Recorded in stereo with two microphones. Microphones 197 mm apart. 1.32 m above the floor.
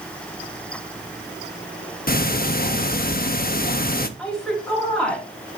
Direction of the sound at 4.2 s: 5° left (ahead or behind).